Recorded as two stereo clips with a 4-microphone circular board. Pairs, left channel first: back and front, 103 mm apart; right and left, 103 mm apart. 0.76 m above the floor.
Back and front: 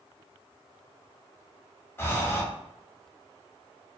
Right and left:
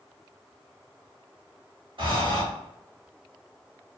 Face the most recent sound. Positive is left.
turn(degrees=115)